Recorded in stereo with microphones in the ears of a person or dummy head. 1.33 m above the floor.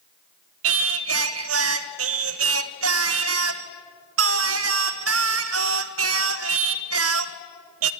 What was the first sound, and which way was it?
Singing, 75° right (ahead or behind).